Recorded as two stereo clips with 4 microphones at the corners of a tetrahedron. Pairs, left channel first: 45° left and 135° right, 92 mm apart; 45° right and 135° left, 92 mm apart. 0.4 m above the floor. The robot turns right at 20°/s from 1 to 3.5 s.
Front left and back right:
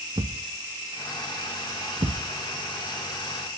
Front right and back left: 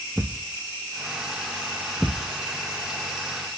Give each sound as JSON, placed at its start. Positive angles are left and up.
{"t": 0.2, "sound": "a thud", "azimuth_deg": -145, "distance_m": 0.6}